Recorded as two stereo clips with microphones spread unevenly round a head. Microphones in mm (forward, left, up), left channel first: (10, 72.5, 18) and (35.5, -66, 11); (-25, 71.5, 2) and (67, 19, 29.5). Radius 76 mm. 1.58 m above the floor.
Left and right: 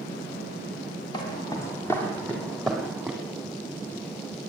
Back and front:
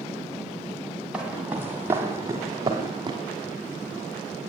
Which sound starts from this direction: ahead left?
Footsteps, at 1.1 s.